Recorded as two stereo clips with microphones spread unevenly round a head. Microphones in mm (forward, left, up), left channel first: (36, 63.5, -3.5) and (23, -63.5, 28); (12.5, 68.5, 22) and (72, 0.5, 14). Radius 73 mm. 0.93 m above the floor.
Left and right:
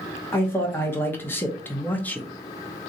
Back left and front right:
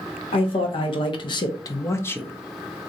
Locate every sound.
0.3 s a man speaking: 150° left, 1.1 m; by 2.3 s 60° left, 0.5 m